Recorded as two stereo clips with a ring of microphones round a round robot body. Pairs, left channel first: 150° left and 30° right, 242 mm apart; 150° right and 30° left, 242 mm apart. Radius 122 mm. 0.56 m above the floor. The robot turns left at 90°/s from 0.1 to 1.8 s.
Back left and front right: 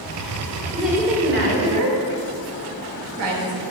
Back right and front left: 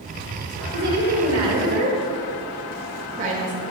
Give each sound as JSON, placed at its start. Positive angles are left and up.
{"t": 0.7, "sound": "a woman speaking", "azimuth_deg": 70, "distance_m": 1.7}